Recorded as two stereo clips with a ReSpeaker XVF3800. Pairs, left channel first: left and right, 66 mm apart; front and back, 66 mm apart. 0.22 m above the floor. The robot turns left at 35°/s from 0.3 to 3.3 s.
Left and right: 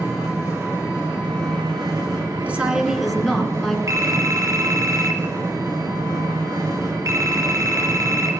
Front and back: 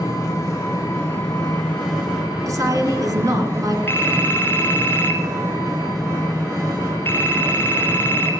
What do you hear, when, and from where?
0.0 s an engine running: 20° right, 8 m; by 8.4 s 125° right, 8 m
2.5 s a woman speaking: 155° right, 2 m; by 3.8 s 175° left, 2 m
3.9 s a phone ringing: 60° right, 2.5 m